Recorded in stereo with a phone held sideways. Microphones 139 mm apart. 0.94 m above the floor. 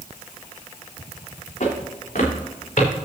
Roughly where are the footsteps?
Left.